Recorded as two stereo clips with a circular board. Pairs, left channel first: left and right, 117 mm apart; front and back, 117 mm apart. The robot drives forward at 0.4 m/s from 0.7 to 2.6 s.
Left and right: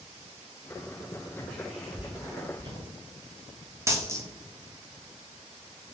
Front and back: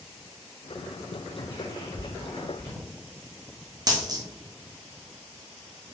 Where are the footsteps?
20° left, 1.8 m; by 2.8 s 65° right, 2 m.